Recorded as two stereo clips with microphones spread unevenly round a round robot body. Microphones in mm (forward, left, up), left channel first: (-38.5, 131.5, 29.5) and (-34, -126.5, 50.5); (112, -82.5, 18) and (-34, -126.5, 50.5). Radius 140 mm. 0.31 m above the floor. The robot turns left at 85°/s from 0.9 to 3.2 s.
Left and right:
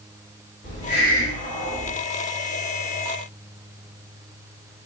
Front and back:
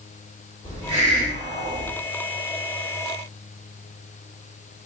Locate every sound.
0.6 s a hiss: 70° left, 1.8 m; by 1.9 s 15° right, 1.8 m